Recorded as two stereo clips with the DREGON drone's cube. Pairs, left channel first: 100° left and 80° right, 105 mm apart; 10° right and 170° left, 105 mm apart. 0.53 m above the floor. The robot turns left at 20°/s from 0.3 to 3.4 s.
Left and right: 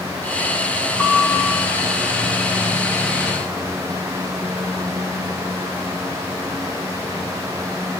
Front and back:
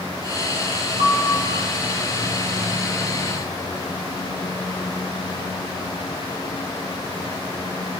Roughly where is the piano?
Behind.